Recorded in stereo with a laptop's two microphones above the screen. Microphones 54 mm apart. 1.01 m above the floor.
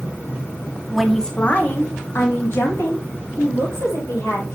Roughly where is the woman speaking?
Centre.